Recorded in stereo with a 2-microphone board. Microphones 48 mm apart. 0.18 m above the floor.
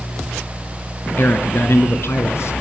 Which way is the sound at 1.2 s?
45° left (ahead or behind).